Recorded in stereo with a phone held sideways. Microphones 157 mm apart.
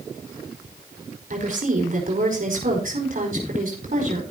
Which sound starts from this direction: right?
A woman speaking, at 1.3 s.